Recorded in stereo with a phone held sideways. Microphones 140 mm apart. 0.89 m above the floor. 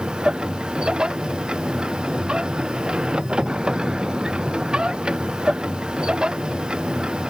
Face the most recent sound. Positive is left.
turn(degrees=-5)  # may be behind; listen again after turning